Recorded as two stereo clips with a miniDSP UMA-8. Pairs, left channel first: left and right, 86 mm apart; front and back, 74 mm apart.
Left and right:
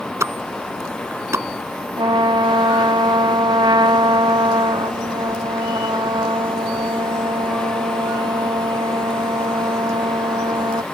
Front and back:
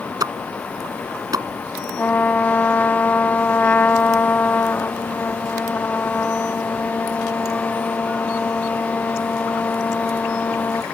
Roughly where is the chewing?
I don't hear chewing.